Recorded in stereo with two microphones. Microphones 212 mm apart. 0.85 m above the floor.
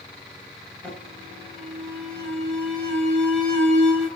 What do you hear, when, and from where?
0.8 s an alarm: 5° left (ahead or behind), 8 m